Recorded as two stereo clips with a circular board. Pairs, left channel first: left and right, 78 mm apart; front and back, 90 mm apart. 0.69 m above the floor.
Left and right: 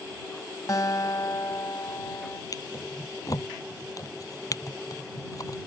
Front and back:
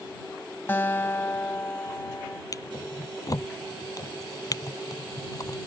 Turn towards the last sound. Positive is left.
turn(degrees=50)